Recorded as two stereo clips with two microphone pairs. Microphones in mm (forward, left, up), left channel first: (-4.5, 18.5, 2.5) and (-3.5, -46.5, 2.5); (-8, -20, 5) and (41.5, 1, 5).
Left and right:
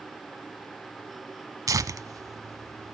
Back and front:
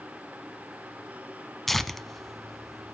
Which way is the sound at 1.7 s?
70° right.